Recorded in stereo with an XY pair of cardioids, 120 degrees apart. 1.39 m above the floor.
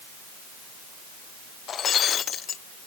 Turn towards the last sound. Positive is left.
turn(degrees=45)